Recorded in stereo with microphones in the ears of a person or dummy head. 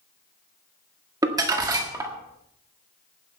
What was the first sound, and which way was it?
Crumpling, 20° right (ahead or behind).